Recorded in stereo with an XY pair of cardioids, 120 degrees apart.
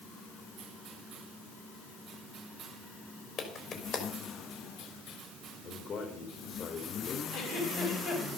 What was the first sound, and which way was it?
A clap, 55° left.